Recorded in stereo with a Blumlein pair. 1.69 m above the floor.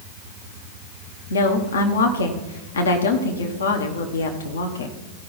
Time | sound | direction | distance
1.3 | a woman speaking | 65° left | 1.1 m